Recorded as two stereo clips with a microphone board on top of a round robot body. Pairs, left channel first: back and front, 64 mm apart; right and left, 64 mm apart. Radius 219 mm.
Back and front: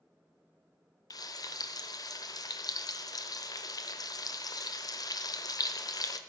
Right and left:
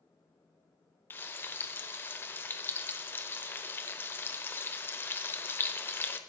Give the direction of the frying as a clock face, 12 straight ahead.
5 o'clock.